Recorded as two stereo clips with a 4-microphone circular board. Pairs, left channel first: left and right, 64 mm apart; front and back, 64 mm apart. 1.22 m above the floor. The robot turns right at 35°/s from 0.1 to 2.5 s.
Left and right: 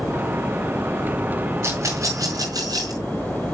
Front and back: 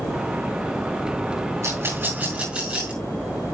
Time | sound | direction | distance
1.6 | a rattle | 140° right | 5.5 m